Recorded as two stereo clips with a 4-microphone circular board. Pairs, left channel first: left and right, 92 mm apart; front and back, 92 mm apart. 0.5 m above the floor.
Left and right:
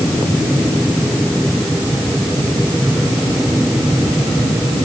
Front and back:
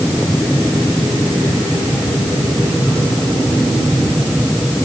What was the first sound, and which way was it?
Only background noise.